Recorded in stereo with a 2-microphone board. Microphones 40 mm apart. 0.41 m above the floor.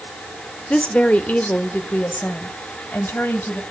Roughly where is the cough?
No cough in this recording.